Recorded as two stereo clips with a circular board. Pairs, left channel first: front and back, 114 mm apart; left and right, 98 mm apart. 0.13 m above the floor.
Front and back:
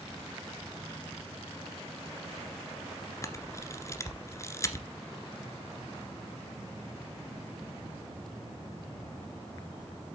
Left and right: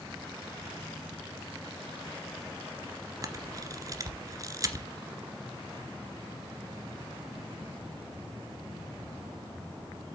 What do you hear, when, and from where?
3.2 s a camera shutter: 55° right, 1.6 m